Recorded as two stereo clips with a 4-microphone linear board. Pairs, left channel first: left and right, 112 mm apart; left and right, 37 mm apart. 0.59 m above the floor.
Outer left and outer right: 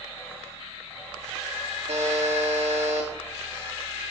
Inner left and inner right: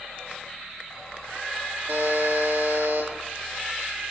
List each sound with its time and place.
1.9 s a buzzer: 75° right (ahead or behind), 9 m